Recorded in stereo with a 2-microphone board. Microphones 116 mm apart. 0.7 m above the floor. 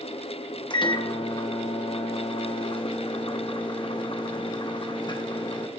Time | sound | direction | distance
0.7 | a microwave | 40° left (ahead or behind) | 1.0 m